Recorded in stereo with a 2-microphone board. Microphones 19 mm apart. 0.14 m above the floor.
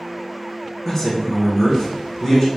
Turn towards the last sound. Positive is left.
turn(degrees=20)  # may be behind; listen again after turning